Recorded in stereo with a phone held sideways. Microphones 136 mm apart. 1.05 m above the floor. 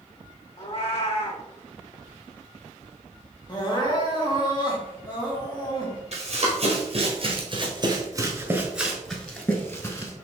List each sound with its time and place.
0.6 s a cat meowing: 45° left (ahead or behind), 1.3 m
3.5 s crying: 30° left (ahead or behind), 1.3 m
6.1 s running footsteps: 50° right (ahead or behind), 1.9 m; by 10.1 s 25° left (ahead or behind), 1.4 m